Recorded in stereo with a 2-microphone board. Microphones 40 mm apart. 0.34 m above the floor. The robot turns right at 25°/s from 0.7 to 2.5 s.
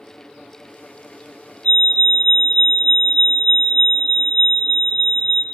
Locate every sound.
1.6 s a fire alarm: 35° left (ahead or behind), 2.5 m; by 5.4 s 25° left (ahead or behind), 2.5 m